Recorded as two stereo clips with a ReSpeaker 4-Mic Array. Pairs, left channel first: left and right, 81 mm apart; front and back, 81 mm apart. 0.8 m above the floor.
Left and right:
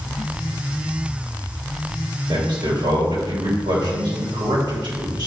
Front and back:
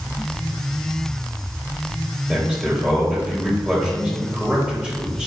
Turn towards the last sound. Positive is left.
turn(degrees=-105)